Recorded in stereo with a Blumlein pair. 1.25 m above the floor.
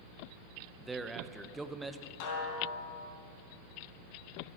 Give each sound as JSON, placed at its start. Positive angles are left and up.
{"t": 0.8, "sound": "a man speaking", "azimuth_deg": -10, "distance_m": 1.0}
{"t": 2.2, "sound": "a snare drum", "azimuth_deg": 45, "distance_m": 4.0}